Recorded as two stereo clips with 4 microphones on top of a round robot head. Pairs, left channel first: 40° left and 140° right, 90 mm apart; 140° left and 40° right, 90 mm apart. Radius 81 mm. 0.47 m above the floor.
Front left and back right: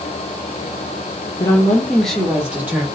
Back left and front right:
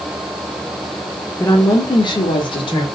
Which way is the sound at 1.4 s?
80° left.